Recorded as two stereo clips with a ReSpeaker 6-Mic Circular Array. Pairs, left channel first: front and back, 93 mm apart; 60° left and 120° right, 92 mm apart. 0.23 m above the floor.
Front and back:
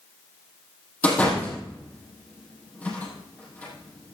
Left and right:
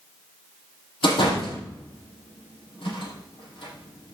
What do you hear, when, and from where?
1.0 s a door slam: 75° left, 5.5 m